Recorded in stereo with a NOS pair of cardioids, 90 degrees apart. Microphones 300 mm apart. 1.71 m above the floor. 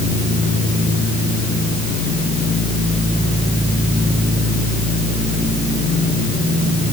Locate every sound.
Only background noise.